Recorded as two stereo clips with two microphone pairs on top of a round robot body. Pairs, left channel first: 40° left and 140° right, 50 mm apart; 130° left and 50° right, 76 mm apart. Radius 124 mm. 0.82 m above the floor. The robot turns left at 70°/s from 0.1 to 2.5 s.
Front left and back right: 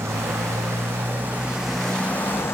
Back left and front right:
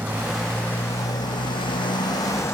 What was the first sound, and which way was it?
A motorcycle, 120° right.